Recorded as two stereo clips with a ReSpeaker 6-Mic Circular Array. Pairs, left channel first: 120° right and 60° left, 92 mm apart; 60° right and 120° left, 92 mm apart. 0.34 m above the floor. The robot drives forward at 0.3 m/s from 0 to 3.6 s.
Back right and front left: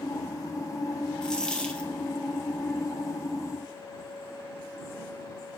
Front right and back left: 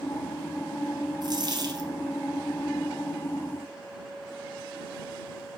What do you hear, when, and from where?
1.2 s a dropped coin: 160° left, 1.2 m